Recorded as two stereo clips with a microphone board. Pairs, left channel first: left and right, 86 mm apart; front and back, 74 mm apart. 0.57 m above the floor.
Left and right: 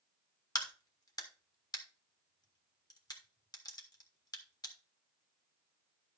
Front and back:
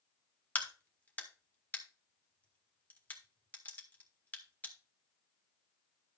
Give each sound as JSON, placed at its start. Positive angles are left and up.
{"t": 0.6, "sound": "a crack", "azimuth_deg": 65, "distance_m": 1.6}